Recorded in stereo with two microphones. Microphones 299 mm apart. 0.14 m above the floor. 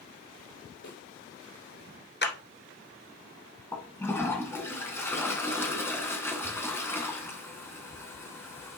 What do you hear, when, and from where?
0.8 s a snare drum: 70° left (ahead or behind), 2.5 m
2.2 s a clap: 35° left (ahead or behind), 1.5 m
3.7 s a toilet flushing: 10° left (ahead or behind), 1.8 m